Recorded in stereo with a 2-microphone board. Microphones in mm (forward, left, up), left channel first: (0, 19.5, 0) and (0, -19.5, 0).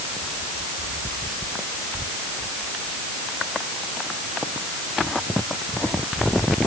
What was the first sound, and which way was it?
Only background noise.